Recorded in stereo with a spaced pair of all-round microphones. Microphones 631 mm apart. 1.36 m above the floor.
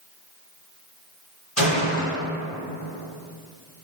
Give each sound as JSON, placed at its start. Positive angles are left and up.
{"t": 1.6, "sound": "a gunshot", "side_deg": 55, "distance_m": 1.9}